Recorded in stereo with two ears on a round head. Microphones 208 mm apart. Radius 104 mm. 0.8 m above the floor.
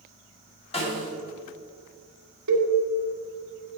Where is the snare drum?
25° left (ahead or behind), 2 m.